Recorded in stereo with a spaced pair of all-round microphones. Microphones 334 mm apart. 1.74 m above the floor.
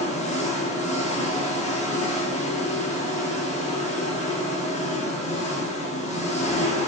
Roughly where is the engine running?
Left.